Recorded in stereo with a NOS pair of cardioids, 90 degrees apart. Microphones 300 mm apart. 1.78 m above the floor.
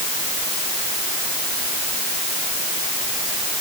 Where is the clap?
No clap in this recording.